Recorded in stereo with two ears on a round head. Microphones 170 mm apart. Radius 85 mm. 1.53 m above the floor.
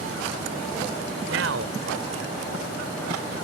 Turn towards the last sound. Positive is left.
turn(degrees=-85)